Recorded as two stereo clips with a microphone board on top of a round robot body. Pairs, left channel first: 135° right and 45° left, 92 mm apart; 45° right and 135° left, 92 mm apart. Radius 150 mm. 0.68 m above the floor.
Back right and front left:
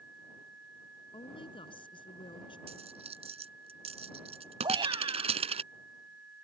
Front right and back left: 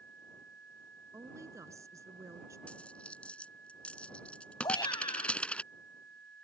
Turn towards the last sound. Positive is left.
turn(degrees=0)